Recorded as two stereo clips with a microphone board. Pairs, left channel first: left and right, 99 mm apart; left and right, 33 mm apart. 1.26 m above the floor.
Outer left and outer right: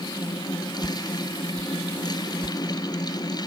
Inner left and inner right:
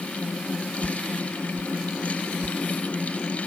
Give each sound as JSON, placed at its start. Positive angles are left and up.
{"t": 0.8, "sound": "a whoosh", "side_deg": -30}